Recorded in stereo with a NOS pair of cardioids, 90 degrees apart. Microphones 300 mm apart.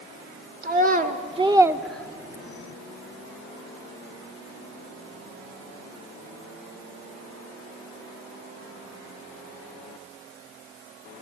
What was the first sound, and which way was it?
A child speaking, 30° right.